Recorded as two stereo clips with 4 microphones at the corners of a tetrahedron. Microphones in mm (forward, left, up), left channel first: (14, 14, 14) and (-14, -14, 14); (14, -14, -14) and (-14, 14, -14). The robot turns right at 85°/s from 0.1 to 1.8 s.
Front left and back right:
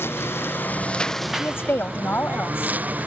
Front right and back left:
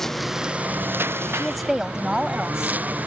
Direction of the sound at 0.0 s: 35° left.